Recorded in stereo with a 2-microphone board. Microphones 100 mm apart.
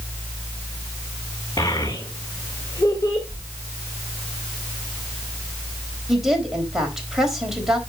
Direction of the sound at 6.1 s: 5° right (ahead or behind).